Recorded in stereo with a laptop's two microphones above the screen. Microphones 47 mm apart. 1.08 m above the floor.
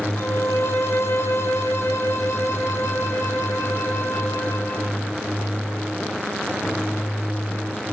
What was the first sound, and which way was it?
A violin, 75° left (ahead or behind).